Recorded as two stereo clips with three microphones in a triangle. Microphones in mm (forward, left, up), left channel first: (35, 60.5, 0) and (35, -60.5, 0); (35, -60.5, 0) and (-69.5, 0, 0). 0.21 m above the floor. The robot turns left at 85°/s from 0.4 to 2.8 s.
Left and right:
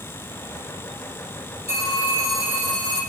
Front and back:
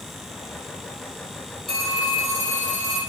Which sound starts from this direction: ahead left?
A phone ringing, at 1.7 s.